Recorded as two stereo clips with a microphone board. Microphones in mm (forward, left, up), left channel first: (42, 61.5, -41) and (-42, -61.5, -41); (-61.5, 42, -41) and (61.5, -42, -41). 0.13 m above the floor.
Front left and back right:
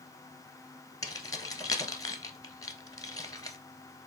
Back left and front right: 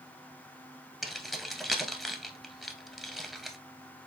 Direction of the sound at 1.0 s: 55° left.